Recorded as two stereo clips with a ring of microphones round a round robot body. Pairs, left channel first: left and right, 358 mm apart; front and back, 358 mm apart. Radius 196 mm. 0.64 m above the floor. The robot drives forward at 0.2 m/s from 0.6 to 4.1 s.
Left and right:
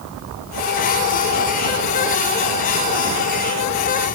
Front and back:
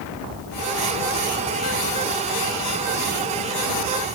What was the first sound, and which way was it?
Only background noise.